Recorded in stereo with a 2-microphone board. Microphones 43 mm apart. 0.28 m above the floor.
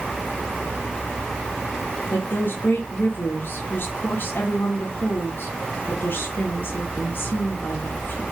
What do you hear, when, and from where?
2.1 s a woman speaking: 50° left (ahead or behind), 3 m